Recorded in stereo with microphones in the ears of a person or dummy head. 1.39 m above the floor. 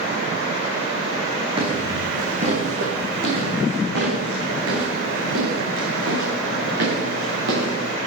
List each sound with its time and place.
1.6 s footsteps: 35° right (ahead or behind), 3.5 m; by 7.9 s 80° right, 7.5 m